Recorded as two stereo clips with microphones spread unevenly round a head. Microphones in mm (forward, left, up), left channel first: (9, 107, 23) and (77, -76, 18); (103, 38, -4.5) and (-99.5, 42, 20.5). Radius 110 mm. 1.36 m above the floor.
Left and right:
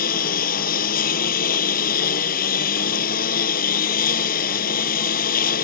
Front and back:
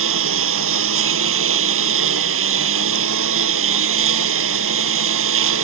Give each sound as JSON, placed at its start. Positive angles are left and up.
{"t": 0.0, "sound": "a lawn mower", "azimuth_deg": 165}